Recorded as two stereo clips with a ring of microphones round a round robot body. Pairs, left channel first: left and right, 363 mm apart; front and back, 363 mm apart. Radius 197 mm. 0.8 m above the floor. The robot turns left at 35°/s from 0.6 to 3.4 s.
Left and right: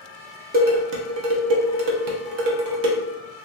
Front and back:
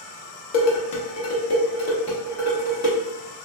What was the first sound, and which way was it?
Dishes clattering, 20° right.